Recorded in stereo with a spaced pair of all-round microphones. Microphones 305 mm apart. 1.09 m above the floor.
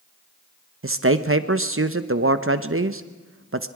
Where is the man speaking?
45° right (ahead or behind), 0.9 m.